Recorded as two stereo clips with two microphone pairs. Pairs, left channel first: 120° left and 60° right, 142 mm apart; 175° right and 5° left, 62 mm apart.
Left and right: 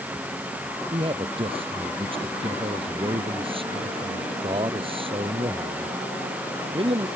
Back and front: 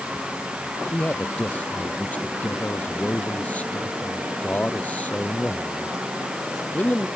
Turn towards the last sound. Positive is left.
turn(degrees=-110)